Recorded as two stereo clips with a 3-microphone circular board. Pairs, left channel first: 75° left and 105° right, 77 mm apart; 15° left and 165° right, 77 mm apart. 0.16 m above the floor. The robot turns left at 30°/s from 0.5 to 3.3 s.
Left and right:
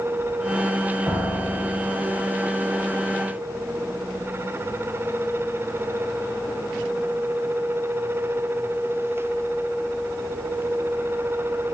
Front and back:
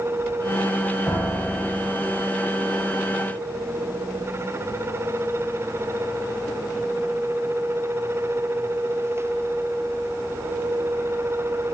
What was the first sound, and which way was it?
A piano, 50° right.